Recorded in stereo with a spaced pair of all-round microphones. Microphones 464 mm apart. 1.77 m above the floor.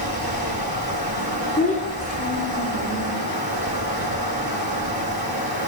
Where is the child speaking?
15° left (ahead or behind), 3.5 m.